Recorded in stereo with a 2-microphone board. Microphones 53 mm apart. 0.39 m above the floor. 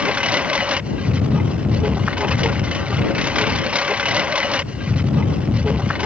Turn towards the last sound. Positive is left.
turn(degrees=-25)  # may be behind; listen again after turning